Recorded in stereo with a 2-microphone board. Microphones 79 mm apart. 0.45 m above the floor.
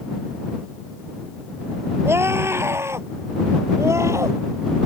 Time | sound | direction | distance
2.0 | a scream | 30° right (ahead or behind) | ?